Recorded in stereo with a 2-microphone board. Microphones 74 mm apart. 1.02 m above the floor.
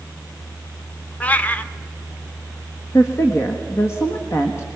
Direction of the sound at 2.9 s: 40° left (ahead or behind).